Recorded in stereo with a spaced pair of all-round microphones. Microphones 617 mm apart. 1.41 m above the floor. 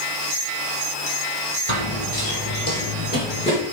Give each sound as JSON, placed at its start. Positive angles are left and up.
{"t": 1.7, "sound": "running footsteps", "side_deg": 45, "distance_m": 2.0}